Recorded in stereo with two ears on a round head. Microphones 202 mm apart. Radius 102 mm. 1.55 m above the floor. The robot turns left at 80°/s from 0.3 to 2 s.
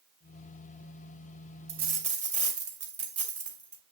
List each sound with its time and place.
1.7 s a dropped coin: 50° right (ahead or behind), 2 m; by 3.8 s 30° right (ahead or behind), 2 m